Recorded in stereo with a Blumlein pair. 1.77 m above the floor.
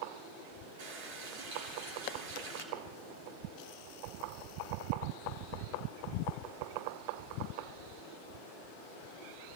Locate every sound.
0.8 s a running tap: 50° right, 3 m